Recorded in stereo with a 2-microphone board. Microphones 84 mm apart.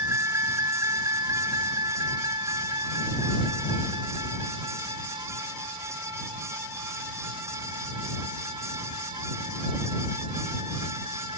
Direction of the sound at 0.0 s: 30° right (ahead or behind).